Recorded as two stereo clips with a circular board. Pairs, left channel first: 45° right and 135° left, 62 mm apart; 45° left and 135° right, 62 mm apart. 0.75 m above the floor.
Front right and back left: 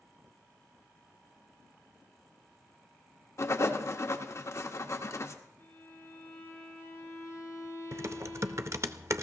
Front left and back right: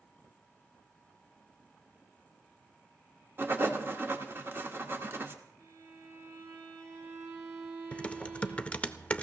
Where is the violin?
95° right, 5.5 m.